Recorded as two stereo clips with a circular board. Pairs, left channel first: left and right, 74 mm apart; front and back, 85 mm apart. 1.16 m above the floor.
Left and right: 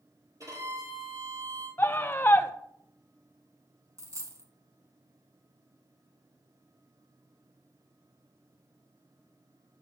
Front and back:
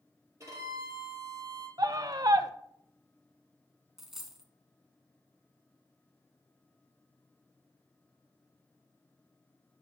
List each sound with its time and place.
0.4 s a violin: 130° right, 5 m
1.8 s a scream: 145° left, 0.5 m
4.0 s a dropped coin: 95° right, 1.4 m